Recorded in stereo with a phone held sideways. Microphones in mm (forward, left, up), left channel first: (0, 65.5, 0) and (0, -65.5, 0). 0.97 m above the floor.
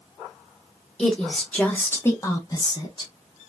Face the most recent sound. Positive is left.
turn(degrees=35)  # may be behind; listen again after turning